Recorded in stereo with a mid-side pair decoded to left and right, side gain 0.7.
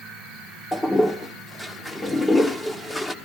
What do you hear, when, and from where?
0.7 s a toilet flushing: 10° left, 1.1 m